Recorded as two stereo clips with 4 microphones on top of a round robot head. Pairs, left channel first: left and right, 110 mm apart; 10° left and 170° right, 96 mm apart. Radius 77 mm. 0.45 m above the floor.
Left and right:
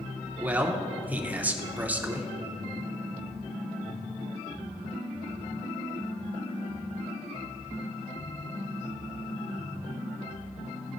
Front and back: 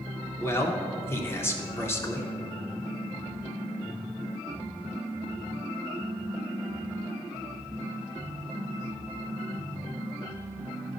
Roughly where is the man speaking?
Ahead right.